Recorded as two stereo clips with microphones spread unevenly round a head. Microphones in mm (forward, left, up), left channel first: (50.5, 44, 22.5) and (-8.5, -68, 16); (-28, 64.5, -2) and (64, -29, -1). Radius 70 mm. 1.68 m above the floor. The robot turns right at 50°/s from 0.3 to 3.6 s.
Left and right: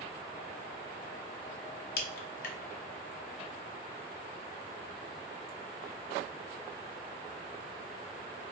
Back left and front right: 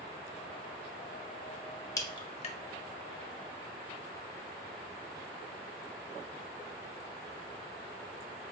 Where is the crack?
70° left, 0.5 m; by 2.6 s 100° left, 0.5 m.